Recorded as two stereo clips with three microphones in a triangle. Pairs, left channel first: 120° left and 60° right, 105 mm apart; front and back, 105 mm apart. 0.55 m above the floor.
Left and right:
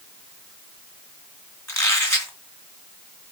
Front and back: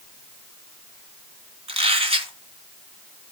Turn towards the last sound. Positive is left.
turn(degrees=180)